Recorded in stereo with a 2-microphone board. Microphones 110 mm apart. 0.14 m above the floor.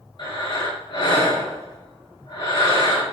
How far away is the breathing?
About 2.5 m.